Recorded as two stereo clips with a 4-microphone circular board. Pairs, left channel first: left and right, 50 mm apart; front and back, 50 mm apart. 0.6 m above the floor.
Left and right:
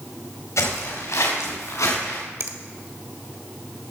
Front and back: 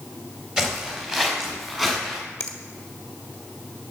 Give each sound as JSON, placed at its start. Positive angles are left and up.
{"t": 0.6, "sound": "footsteps", "azimuth_deg": 100, "distance_m": 5.5}
{"t": 2.4, "sound": "a finger snap", "azimuth_deg": -65, "distance_m": 1.5}